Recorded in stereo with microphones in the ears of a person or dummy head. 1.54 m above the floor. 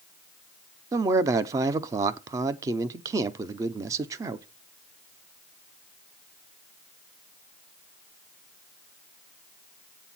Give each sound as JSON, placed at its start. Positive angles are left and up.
{"t": 0.9, "sound": "a man speaking", "side_deg": -20, "distance_m": 0.6}